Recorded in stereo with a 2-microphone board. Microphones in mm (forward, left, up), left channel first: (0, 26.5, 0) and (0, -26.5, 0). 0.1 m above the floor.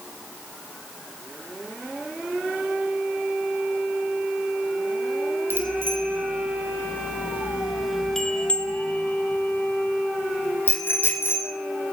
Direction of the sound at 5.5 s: 45° right (ahead or behind).